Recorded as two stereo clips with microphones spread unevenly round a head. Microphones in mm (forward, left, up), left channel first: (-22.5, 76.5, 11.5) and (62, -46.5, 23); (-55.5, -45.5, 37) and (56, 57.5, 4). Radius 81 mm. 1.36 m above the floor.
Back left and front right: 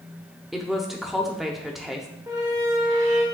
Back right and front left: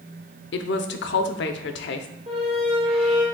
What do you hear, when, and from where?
0.5 s a woman speaking: 145° right, 0.6 m
2.3 s a squeak: 5° right, 1.2 m